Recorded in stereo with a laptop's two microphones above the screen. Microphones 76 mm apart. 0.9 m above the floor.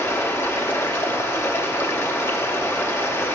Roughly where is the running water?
Left.